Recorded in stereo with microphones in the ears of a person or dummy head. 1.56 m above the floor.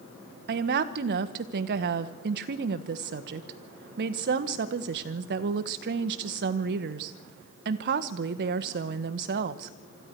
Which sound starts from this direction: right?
A woman speaking, at 0.5 s.